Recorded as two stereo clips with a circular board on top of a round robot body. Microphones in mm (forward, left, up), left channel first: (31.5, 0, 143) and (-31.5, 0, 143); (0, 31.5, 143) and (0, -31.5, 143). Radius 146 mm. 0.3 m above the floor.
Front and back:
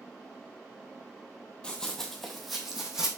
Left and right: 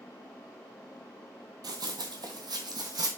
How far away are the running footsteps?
About 0.8 m.